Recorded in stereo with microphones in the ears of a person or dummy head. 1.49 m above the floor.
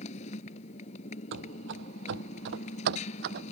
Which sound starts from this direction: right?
Running footsteps, at 1.3 s.